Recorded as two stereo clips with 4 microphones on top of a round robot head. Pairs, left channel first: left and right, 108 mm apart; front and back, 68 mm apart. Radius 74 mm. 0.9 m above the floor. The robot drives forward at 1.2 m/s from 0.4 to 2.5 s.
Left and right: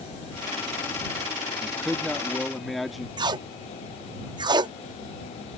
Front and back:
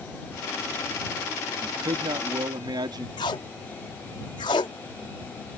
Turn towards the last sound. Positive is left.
turn(degrees=-40)